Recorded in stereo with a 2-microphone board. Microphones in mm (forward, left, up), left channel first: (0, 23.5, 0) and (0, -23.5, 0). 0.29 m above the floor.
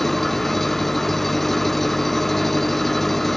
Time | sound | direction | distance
0.0 | an engine running | 5° left (ahead or behind) | ?